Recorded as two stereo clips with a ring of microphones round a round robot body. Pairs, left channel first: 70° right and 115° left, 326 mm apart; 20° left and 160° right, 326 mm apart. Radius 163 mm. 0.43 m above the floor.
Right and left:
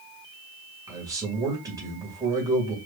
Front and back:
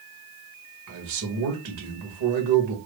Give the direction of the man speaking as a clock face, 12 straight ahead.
6 o'clock.